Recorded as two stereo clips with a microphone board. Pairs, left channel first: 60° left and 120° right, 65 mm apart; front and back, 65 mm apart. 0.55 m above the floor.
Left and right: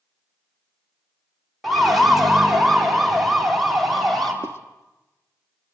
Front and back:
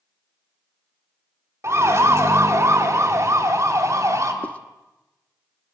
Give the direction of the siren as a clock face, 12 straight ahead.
7 o'clock.